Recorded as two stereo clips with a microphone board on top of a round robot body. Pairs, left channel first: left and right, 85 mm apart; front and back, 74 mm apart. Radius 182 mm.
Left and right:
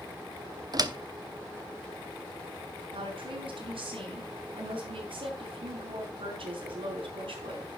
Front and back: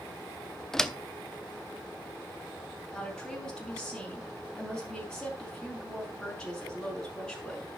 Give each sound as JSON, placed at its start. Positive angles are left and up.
{"t": 0.7, "sound": "a door slam", "azimuth_deg": -85, "distance_m": 1.2}
{"t": 2.9, "sound": "a woman speaking", "azimuth_deg": -80, "distance_m": 5.5}